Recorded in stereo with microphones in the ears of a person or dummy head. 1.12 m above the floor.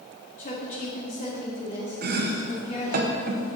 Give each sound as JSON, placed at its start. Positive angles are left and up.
{"t": 0.4, "sound": "a woman speaking", "side_deg": 40, "distance_m": 2.0}
{"t": 2.0, "sound": "chopping", "side_deg": -50, "distance_m": 0.9}